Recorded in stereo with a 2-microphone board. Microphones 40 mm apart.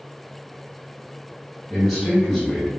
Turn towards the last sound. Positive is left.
turn(degrees=5)  # may be behind; listen again after turning